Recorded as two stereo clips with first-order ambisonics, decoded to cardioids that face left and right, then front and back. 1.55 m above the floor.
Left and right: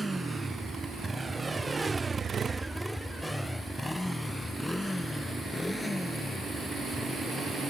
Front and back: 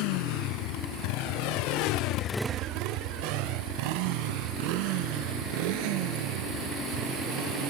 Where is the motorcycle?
5° right; by 7.7 s 175° left.